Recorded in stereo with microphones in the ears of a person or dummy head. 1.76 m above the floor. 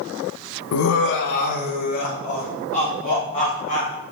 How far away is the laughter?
About 0.8 m.